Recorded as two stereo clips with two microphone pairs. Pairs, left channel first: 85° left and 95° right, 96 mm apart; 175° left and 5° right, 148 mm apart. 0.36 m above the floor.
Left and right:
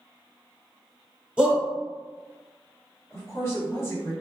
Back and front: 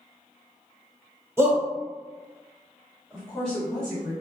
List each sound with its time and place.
1.4 s a shout: 40° right, 1.1 m
3.1 s a woman speaking: 95° left, 1.6 m